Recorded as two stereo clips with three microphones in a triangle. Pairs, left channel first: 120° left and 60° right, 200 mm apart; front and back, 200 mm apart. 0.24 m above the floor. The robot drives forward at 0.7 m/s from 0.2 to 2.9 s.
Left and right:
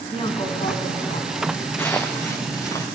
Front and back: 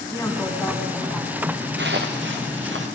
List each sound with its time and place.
0.1 s a woman speaking: 65° left, 2.0 m; by 1.5 s 100° left, 1.9 m
1.8 s footsteps: 160° right, 1.1 m; by 2.9 s 165° right, 2.5 m